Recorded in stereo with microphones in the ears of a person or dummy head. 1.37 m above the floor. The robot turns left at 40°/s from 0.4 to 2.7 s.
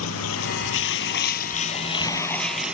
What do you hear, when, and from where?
0.0 s running water: 85° left; by 2.7 s 10° right